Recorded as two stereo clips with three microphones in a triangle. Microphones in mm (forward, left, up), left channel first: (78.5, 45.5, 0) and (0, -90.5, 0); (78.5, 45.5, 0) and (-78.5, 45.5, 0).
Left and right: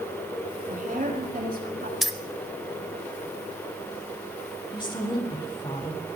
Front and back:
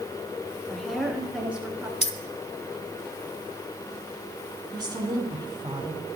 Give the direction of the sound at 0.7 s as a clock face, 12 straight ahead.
3 o'clock.